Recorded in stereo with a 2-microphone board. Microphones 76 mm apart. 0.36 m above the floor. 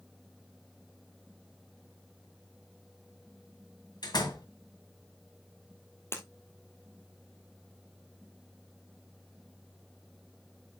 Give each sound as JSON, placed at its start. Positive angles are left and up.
{"t": 4.0, "sound": "a door slam", "side_deg": 65, "distance_m": 1.9}
{"t": 6.1, "sound": "breaking glass", "side_deg": 35, "distance_m": 1.7}